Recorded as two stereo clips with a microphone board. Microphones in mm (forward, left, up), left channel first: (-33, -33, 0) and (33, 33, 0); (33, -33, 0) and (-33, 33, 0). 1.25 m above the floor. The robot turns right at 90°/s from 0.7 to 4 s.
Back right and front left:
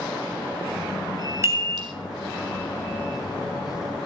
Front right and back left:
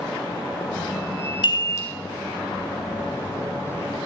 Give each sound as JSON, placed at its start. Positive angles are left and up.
{"t": 1.4, "sound": "a chime", "azimuth_deg": -15, "distance_m": 3.5}